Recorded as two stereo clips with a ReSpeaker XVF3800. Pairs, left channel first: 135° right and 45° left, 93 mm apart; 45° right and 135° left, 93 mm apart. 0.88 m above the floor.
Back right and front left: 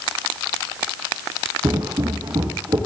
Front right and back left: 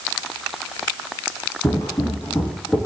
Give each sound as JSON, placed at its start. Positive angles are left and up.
{"t": 1.6, "sound": "footsteps", "azimuth_deg": 0, "distance_m": 1.8}